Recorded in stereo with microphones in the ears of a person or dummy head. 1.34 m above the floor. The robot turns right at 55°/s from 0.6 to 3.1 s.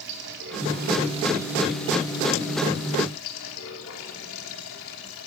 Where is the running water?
60° right, 3.5 m; by 5.3 s 75° left, 3.5 m.